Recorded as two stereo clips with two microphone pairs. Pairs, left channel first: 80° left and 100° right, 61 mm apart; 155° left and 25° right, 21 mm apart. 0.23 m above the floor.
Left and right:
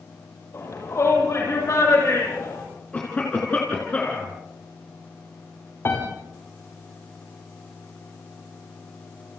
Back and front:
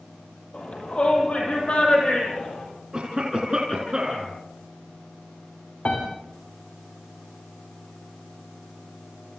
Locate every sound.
0.5 s a shout: 120° left, 9.5 m; by 2.6 s 115° left, 12 m
2.9 s a cough: 20° left, 3.5 m
5.8 s a piano: 125° left, 7 m